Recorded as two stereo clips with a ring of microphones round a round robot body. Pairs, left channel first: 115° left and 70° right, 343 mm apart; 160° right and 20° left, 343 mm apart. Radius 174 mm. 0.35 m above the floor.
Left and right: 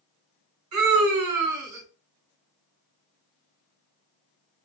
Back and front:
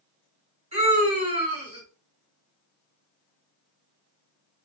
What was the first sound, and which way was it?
A scream, 45° right.